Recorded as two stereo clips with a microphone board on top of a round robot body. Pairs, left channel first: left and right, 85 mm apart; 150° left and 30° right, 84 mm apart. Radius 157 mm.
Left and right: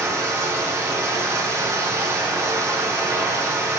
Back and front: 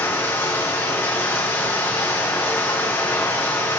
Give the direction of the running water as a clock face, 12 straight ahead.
5 o'clock.